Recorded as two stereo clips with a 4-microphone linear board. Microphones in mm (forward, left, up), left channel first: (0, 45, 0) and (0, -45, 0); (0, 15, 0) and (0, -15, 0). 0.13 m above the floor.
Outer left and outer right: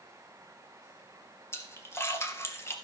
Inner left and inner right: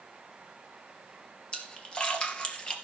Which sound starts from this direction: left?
A splash, at 1.5 s.